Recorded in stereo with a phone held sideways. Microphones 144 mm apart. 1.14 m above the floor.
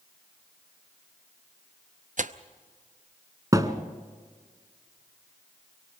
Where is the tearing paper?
60° right (ahead or behind), 0.6 m.